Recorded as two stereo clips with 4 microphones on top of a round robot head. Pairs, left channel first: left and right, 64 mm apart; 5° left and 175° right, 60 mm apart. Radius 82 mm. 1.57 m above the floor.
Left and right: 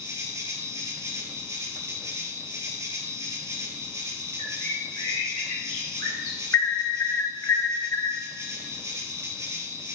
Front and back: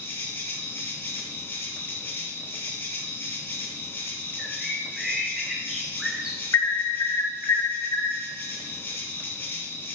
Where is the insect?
50° right, 2.5 m.